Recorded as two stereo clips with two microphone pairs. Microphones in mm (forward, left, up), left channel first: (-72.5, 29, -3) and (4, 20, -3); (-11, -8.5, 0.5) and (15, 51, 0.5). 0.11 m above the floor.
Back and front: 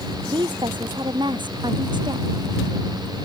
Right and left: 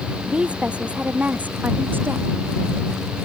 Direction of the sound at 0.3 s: 10° right.